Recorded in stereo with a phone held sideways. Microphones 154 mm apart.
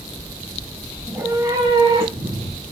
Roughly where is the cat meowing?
Centre.